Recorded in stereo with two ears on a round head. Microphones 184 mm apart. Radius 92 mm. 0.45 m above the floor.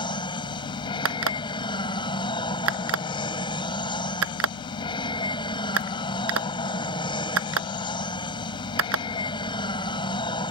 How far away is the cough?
No cough in this recording.